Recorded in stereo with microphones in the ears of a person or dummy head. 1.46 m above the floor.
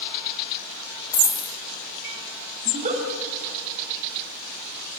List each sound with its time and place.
1.1 s a dropped coin: 15° left (ahead or behind), 1.8 m
2.6 s a giggle: 35° right (ahead or behind), 3.5 m